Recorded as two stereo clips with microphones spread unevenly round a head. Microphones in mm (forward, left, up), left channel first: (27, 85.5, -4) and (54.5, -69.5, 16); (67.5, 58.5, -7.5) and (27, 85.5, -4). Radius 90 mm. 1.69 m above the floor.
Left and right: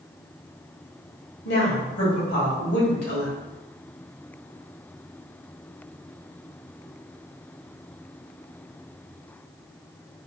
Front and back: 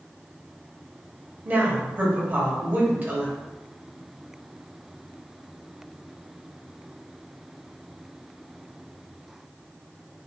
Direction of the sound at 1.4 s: 95° left.